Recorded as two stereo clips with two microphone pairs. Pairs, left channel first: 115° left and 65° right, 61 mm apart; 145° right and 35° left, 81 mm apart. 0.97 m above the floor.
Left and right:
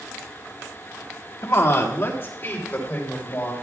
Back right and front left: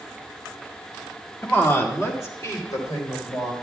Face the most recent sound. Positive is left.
turn(degrees=175)